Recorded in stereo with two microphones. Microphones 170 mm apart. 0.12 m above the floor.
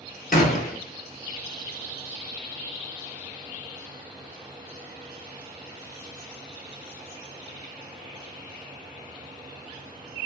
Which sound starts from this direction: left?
A gunshot, at 0.3 s.